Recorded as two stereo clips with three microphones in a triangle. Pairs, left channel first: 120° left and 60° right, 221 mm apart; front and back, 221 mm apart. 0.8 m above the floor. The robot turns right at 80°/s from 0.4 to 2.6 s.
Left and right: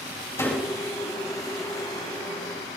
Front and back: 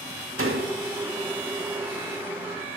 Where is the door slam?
160° right, 2.5 m; by 0.8 s 130° right, 2.5 m.